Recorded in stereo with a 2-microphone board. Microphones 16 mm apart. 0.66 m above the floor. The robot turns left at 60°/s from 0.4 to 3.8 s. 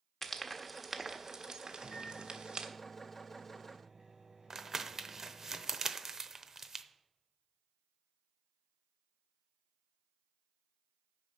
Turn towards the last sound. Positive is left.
turn(degrees=-35)  # may be behind; listen again after turning